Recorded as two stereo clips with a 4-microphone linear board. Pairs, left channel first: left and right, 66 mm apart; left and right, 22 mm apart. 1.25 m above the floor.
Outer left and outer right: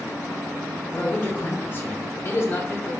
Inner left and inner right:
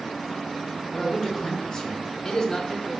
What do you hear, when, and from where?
0.9 s a man speaking: 25° left (ahead or behind), 1.1 m; by 2.9 s 35° left (ahead or behind), 0.6 m